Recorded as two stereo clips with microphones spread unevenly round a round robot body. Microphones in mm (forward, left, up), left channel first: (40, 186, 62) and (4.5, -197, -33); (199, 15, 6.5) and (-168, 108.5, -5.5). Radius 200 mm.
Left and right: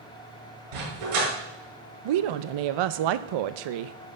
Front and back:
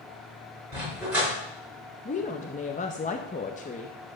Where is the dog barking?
105° right, 5.5 m.